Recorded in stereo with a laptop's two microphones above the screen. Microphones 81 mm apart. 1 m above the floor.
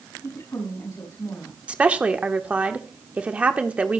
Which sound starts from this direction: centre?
A woman speaking, at 1.7 s.